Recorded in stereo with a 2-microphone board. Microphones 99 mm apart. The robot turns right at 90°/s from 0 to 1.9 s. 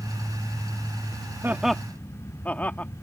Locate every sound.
1.4 s laughter: 25° right (ahead or behind); by 2.9 s 15° left (ahead or behind)